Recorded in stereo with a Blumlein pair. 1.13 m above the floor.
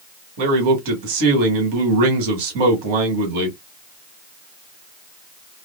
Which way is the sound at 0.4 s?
45° right.